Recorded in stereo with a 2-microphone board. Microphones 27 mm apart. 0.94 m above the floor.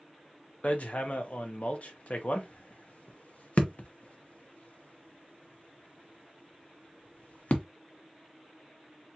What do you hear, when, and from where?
0.6 s hammering: 55° left (ahead or behind), 0.8 m